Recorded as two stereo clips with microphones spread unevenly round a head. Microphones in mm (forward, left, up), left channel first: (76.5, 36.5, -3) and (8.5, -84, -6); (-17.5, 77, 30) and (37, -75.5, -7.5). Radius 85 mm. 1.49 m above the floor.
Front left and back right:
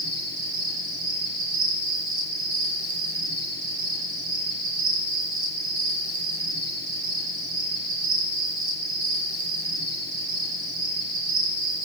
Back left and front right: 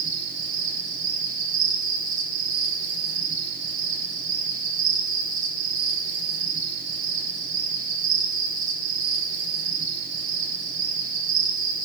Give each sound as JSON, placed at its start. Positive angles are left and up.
{"t": 0.0, "sound": "an insect", "azimuth_deg": -120, "distance_m": 9.0}